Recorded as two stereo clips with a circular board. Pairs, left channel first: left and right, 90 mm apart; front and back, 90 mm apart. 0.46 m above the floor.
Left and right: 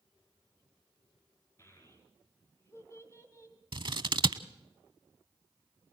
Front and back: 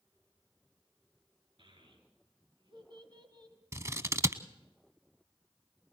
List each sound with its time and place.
1.6 s a child speaking: 150° left, 4.5 m; by 3.6 s 140° left, 1.9 m
3.7 s scissors: 120° right, 0.7 m